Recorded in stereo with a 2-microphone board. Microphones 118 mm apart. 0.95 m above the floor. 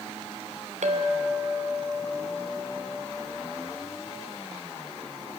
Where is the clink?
85° right, 2.5 m.